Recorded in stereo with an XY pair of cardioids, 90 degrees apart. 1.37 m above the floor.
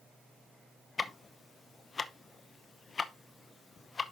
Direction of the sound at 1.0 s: 40° left.